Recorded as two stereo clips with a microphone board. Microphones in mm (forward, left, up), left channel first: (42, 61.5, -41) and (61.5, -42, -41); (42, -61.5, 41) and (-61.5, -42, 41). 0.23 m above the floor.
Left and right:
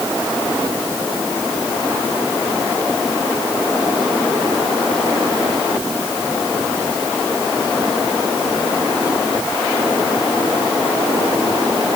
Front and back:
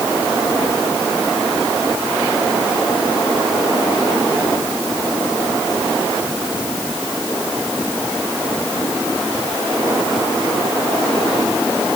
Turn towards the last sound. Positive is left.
No sound to turn to.